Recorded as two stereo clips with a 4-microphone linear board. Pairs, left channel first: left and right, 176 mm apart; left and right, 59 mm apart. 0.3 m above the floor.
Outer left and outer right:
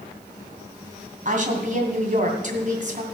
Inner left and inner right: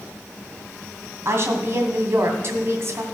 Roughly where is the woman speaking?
Right.